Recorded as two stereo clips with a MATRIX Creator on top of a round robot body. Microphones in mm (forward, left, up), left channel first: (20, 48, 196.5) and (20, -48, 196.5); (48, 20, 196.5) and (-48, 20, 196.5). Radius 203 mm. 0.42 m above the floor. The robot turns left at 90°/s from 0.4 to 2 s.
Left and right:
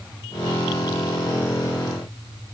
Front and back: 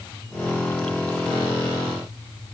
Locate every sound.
Only background noise.